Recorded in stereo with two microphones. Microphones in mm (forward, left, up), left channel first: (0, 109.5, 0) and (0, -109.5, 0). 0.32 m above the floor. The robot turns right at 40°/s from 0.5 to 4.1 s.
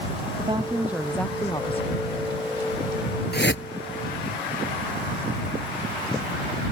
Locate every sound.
0.4 s a woman speaking: 25° right; by 2.0 s 40° left
3.3 s a whoosh: 55° left (ahead or behind); by 3.6 s 65° left (ahead or behind)